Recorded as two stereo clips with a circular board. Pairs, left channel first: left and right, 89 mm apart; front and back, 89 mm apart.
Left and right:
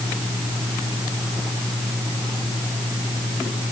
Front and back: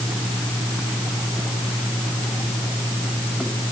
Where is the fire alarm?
I don't hear a fire alarm.